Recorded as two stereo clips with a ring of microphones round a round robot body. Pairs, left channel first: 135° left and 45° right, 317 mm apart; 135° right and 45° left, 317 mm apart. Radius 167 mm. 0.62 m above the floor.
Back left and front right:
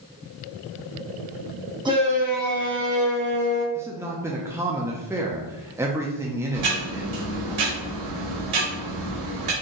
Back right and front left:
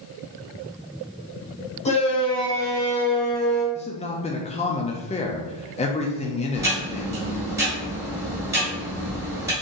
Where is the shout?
100° right, 1.2 m; by 3.6 s 45° right, 1.7 m.